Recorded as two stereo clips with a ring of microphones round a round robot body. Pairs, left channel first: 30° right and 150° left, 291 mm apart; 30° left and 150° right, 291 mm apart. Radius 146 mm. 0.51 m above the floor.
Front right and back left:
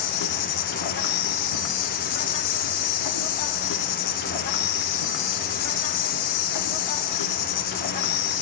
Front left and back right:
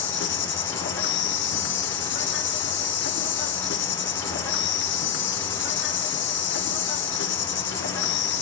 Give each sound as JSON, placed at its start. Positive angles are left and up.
{"t": 0.0, "sound": "an insect", "azimuth_deg": -20, "distance_m": 0.8}